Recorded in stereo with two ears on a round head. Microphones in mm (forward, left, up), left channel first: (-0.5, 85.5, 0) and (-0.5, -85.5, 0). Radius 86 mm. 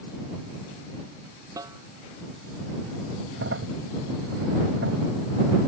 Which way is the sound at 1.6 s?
20° right (ahead or behind).